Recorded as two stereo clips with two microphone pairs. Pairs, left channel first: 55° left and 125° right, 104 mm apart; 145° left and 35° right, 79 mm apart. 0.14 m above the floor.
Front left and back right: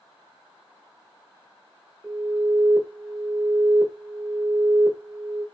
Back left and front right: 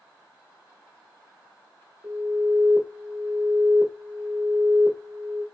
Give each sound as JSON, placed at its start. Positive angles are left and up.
{"t": 2.0, "sound": "an alarm", "azimuth_deg": -50, "distance_m": 1.1}